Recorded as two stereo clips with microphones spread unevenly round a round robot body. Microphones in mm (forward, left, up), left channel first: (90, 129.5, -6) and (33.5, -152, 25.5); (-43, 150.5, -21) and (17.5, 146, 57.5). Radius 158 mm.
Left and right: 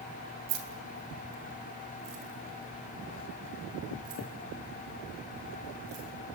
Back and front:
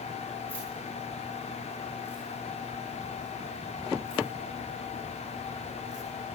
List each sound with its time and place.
0.5 s keys jangling: 130° right, 3 m; by 6.0 s 140° right, 7 m